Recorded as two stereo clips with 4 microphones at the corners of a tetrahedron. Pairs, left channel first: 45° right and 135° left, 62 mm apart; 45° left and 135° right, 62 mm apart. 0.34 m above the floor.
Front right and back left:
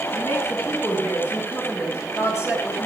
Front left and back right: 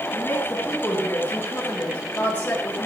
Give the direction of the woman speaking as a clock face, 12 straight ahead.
12 o'clock.